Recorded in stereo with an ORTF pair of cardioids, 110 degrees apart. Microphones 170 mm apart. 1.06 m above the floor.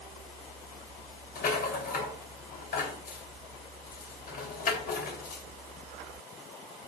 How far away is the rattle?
About 3 m.